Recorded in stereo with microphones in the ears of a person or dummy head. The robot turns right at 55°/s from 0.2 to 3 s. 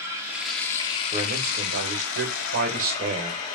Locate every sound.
0.0 s running water: 15° right, 1.9 m; by 3.5 s 140° left, 1.9 m
1.1 s a man speaking: 150° right, 1.8 m; by 3.4 s 45° right, 1.8 m